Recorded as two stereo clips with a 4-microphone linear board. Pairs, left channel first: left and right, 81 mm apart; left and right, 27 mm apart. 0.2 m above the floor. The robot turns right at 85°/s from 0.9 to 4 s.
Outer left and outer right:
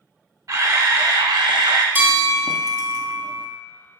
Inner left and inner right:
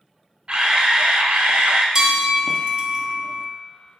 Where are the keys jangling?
No keys jangling in this recording.